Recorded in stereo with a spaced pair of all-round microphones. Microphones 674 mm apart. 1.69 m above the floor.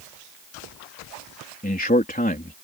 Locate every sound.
1.6 s a man speaking: 15° left (ahead or behind)